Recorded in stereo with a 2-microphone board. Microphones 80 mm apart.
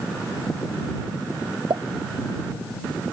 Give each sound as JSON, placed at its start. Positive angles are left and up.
{"t": 1.7, "sound": "a pop", "side_deg": -80}